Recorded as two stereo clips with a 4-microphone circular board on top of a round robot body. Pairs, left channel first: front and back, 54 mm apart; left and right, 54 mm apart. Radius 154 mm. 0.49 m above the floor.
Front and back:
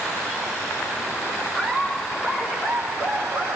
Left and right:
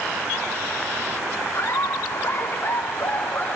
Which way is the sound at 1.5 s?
100° left.